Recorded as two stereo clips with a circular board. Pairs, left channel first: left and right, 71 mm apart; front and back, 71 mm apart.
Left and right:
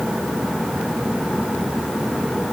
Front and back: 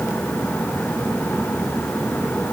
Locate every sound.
Only background noise.